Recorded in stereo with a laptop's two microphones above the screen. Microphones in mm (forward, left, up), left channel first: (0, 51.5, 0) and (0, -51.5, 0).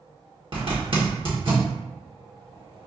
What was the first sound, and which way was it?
A zipper, 55° right (ahead or behind).